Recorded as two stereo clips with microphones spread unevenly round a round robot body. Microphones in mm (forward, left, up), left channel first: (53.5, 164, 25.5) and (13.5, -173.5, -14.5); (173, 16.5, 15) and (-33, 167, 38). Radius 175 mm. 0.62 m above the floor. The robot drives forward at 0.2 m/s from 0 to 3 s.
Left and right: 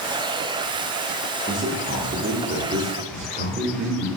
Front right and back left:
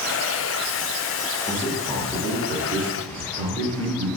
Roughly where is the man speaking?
Right.